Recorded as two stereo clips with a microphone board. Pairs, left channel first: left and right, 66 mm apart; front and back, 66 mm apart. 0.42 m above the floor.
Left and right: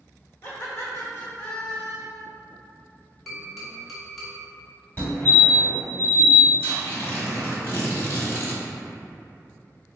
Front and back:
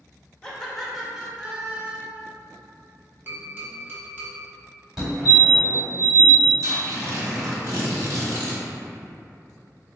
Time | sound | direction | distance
0.4 | laughter | 70° left | 1.0 m
3.3 | tapping | straight behind | 1.3 m
5.0 | a fire alarm | 100° left | 1.8 m
6.6 | tearing paper | 150° left | 1.1 m